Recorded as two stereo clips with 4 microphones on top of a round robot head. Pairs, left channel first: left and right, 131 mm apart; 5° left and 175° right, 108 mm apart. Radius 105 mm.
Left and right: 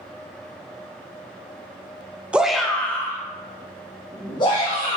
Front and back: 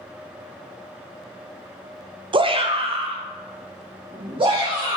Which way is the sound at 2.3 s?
170° right.